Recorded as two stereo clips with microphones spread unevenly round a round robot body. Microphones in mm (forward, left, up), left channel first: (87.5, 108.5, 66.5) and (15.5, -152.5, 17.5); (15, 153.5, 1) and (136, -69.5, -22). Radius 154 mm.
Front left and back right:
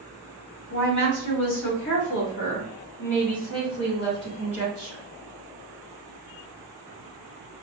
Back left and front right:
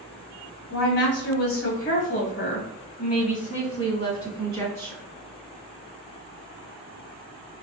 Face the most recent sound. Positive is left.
turn(degrees=35)